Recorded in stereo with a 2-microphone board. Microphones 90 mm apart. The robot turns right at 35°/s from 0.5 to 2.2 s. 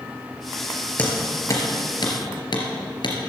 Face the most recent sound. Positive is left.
turn(degrees=55)  # may be behind; listen again after turning